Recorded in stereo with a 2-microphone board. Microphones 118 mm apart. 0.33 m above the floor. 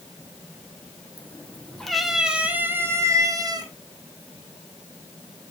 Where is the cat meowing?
15° left (ahead or behind), 2 m; by 3.7 s 35° right (ahead or behind), 2 m.